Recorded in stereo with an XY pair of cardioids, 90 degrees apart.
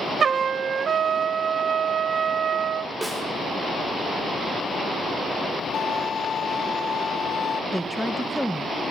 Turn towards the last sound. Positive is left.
turn(degrees=0)